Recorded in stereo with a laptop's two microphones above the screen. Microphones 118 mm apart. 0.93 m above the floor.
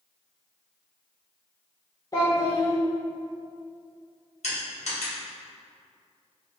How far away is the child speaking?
About 0.6 m.